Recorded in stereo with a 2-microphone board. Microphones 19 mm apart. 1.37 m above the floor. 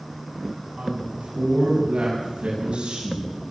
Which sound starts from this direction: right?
A woman speaking, at 0.8 s.